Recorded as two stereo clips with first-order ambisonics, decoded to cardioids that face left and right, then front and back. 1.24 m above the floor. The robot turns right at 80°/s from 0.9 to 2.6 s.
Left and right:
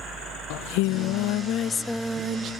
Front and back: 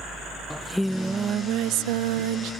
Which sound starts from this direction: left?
Singing, at 0.5 s.